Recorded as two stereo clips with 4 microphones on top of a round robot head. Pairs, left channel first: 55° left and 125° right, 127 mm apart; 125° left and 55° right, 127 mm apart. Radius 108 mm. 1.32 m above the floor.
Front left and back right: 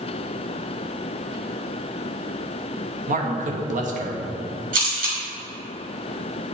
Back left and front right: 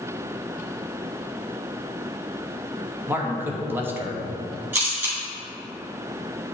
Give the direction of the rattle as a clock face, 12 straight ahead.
No rattle in this recording.